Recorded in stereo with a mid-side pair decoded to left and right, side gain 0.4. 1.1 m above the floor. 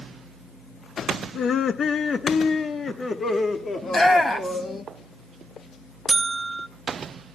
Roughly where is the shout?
Ahead left.